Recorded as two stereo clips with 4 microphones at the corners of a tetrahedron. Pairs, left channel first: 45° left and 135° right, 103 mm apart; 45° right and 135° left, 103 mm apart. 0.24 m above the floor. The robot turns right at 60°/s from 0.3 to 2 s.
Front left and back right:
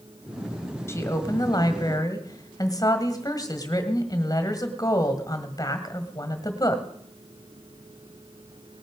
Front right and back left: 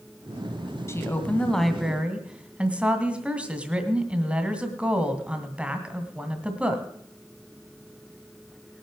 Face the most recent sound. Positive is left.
turn(degrees=65)